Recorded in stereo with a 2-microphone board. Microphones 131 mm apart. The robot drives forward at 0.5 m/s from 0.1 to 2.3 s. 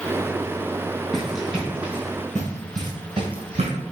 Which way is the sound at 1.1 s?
5° left (ahead or behind).